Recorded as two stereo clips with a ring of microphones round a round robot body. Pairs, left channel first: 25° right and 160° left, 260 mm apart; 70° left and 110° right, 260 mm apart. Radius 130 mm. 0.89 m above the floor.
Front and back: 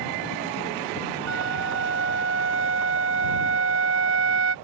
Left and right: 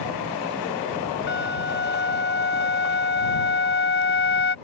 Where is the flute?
115° left.